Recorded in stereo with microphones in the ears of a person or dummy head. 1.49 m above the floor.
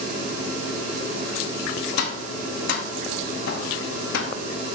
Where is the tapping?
60° left (ahead or behind), 0.9 m.